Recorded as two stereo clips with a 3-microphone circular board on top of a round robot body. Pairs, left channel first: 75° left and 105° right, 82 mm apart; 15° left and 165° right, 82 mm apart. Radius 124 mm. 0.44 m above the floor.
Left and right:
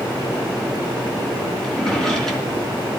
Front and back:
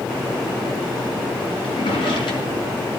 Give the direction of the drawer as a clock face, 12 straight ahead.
12 o'clock.